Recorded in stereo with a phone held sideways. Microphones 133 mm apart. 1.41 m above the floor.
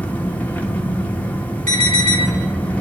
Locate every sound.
0.0 s an engine running: 15° left (ahead or behind), 1.1 m
1.7 s an alarm: 75° right (ahead or behind), 4.5 m